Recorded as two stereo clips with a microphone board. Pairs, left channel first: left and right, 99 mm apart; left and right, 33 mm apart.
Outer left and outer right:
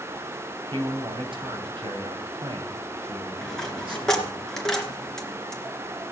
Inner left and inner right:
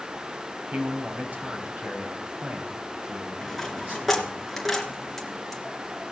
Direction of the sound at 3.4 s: 5° left (ahead or behind).